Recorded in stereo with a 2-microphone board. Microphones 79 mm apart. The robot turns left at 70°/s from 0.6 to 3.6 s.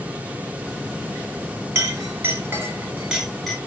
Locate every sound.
1.8 s a clink: 30° right (ahead or behind), 1.1 m; by 3.6 s 5° left (ahead or behind), 1.1 m